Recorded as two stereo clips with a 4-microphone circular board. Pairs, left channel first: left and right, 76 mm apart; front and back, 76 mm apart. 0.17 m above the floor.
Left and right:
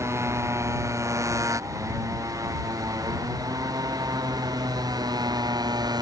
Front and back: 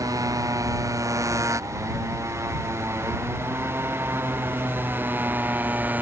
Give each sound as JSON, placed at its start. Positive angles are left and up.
{"t": 0.0, "sound": "a motorcycle", "azimuth_deg": -140}